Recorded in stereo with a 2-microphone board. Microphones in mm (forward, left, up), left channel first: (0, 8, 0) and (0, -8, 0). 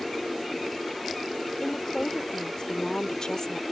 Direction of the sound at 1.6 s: 40° left (ahead or behind).